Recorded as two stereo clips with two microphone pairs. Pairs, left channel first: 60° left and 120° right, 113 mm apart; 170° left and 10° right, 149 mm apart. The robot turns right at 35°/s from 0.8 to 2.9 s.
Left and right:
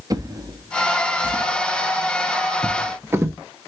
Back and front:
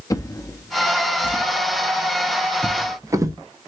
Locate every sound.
0.1 s a drawer: 140° right, 0.6 m; by 3.4 s 70° right, 0.6 m